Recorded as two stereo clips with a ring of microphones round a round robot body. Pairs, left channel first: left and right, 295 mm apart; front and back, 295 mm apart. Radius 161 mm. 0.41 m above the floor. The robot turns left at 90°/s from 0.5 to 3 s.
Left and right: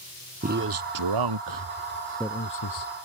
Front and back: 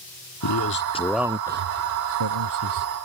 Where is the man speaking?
30° right; by 2.9 s 115° left.